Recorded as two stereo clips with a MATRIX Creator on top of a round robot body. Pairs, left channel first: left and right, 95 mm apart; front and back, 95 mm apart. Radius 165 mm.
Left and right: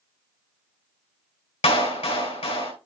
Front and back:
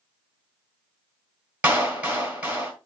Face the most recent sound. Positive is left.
turn(degrees=105)